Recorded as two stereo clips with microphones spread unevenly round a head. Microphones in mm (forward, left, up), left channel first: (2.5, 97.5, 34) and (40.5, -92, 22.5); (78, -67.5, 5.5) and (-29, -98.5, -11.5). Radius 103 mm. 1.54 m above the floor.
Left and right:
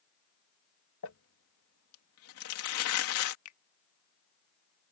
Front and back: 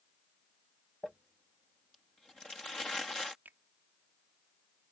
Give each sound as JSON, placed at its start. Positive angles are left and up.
{"t": 1.0, "sound": "crumpling", "azimuth_deg": 100}
{"t": 3.5, "sound": "a finger snap", "azimuth_deg": 110}